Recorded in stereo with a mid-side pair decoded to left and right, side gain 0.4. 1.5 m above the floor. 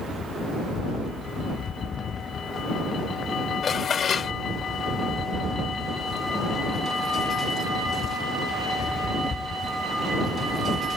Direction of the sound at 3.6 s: 55° left.